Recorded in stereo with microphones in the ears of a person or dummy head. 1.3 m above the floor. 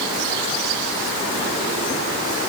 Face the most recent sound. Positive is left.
No sound to turn to.